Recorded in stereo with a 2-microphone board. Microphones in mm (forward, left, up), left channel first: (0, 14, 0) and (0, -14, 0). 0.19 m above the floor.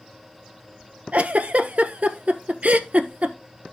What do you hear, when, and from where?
1.1 s a giggle: 60° right (ahead or behind), 1.0 m